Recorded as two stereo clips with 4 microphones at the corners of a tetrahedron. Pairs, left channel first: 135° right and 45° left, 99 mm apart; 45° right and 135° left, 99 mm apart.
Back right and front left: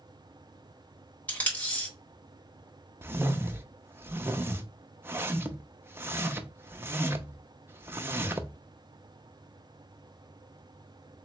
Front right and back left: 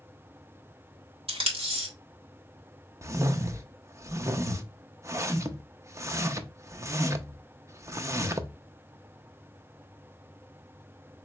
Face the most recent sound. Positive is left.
turn(degrees=95)